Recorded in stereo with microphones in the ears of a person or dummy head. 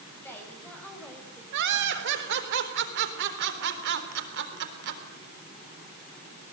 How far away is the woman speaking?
About 6.5 m.